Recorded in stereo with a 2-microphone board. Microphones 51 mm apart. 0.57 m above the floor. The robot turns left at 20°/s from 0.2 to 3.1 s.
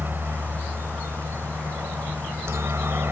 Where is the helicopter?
55° right; by 3.1 s 110° right.